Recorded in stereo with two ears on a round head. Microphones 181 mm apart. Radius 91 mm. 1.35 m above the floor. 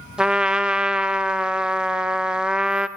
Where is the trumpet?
5° right (ahead or behind), 0.6 m.